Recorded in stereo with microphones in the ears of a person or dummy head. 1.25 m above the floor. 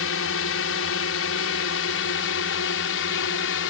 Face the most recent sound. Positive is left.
turn(degrees=65)  # may be behind; listen again after turning